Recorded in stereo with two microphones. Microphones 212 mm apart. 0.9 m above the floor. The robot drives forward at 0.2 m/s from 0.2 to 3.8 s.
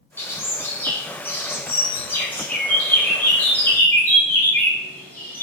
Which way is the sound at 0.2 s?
15° left (ahead or behind).